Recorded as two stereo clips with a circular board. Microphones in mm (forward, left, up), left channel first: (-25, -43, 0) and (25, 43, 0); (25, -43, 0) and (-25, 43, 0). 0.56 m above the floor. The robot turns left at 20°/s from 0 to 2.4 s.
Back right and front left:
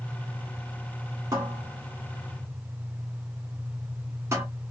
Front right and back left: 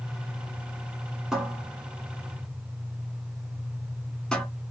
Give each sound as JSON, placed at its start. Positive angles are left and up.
{"t": 1.3, "sound": "a cupboard door", "azimuth_deg": 35, "distance_m": 1.2}